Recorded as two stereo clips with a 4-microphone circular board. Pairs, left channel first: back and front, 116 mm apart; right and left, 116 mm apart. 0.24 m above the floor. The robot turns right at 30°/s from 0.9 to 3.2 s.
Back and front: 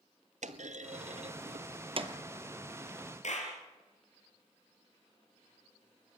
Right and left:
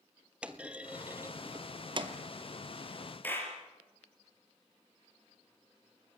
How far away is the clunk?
About 1.1 m.